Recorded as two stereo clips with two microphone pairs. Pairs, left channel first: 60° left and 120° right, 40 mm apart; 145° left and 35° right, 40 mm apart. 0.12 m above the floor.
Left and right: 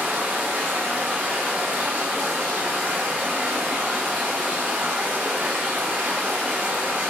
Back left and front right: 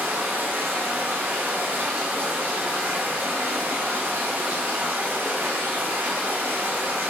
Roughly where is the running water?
Right.